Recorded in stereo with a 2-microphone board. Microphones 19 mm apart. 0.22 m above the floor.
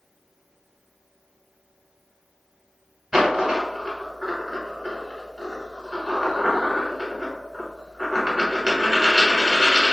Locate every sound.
3.1 s a dropped coin: 35° right (ahead or behind), 1.3 m